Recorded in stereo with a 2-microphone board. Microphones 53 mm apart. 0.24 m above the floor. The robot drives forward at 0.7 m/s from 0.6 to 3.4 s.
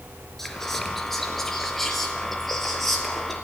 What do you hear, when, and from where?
0.4 s whispering: 5° left (ahead or behind), 4 m